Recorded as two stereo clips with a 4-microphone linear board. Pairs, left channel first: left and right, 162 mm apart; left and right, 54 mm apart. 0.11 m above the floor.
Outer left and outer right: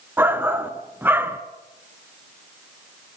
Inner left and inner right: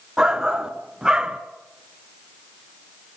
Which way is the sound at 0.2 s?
15° right (ahead or behind).